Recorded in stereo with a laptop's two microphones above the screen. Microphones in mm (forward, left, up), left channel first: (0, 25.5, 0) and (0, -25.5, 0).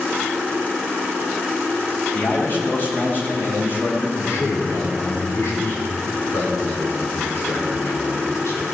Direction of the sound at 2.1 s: 45° left (ahead or behind).